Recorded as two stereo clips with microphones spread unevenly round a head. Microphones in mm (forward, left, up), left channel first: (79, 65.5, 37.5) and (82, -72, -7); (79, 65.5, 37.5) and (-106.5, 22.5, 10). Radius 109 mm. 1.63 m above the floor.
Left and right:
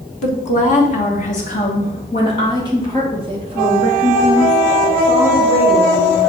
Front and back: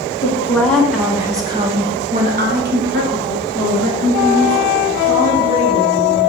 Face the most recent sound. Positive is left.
turn(degrees=-175)